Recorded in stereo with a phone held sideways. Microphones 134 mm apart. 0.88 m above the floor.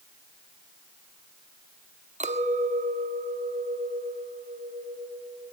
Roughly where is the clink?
Right.